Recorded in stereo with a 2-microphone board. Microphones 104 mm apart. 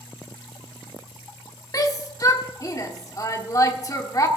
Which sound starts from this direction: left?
A shout, at 1.7 s.